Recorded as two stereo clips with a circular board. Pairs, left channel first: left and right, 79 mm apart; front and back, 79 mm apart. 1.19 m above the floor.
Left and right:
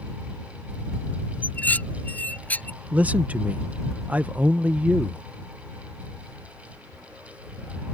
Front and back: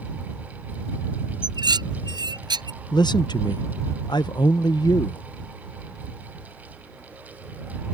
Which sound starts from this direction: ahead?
A man speaking, at 2.9 s.